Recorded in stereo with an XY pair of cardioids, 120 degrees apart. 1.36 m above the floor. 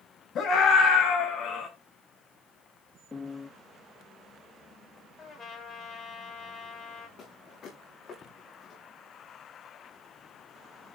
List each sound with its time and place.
0.3 s a scream: 55° left, 8.5 m; by 1.7 s 50° left, 10 m
3.1 s a piano: 25° left, 1.6 m
5.2 s a trumpet: 45° left, 6.5 m
7.2 s footsteps: 50° left, 7.5 m